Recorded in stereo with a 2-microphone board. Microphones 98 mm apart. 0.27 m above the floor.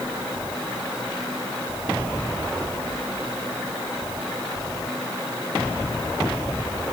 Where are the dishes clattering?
No dishes clattering in this recording.